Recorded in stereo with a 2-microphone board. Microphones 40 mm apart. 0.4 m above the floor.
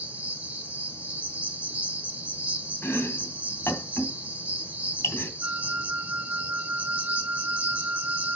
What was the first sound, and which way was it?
An insect, 30° right (ahead or behind).